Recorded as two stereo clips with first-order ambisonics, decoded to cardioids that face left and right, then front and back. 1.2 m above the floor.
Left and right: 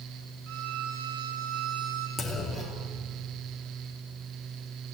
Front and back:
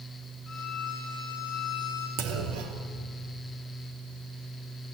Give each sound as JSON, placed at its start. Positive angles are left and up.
{"t": 0.5, "sound": "a violin", "azimuth_deg": -75, "distance_m": 5.0}
{"t": 2.2, "sound": "a clunk", "azimuth_deg": 175, "distance_m": 2.5}